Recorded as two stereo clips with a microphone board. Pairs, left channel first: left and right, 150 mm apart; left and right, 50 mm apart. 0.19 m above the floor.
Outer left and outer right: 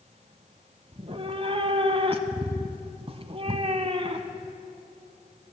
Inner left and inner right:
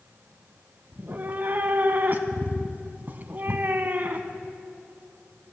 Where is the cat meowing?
40° right (ahead or behind), 0.6 m.